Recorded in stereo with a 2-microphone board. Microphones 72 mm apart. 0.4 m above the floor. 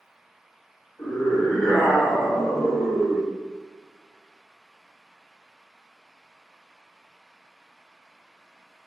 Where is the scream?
45° left (ahead or behind), 1.1 m; by 3.3 s 50° right (ahead or behind), 1.5 m.